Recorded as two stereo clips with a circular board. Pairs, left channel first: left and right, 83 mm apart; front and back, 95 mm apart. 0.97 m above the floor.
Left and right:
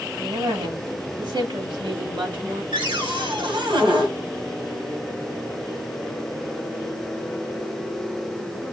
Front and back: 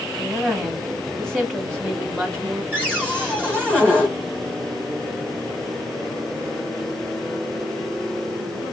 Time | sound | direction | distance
0.2 | a woman speaking | 80° right | 1.9 m
2.7 | a cupboard door | 80° right | 2.5 m